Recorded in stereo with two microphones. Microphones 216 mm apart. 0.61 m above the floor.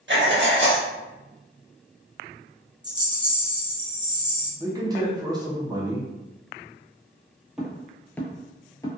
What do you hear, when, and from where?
0.1 s writing: 55° right (ahead or behind), 0.6 m
2.8 s a rattle: 20° right (ahead or behind), 0.9 m
4.6 s a man speaking: 20° right (ahead or behind), 0.7 m
7.6 s footsteps: centre (ahead or behind), 0.9 m; by 8.9 s 15° left (ahead or behind), 0.7 m